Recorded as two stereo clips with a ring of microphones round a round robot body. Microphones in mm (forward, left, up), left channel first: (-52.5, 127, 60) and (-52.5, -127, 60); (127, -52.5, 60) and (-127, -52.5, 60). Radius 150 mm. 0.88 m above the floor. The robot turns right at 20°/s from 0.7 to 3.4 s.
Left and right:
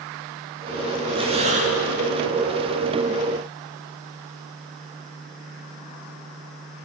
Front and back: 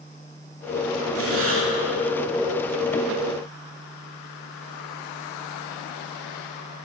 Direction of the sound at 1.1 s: 160° right.